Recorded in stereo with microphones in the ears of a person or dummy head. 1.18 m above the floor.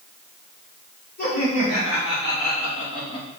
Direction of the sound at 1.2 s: 50° left (ahead or behind).